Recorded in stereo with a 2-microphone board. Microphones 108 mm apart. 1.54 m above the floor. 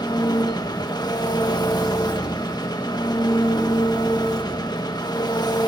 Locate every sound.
0.0 s an engine running: 40° left (ahead or behind), 1.6 m